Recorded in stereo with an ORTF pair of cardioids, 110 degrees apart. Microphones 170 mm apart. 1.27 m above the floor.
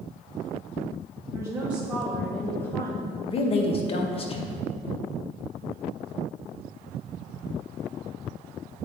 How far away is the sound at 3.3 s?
About 1.1 m.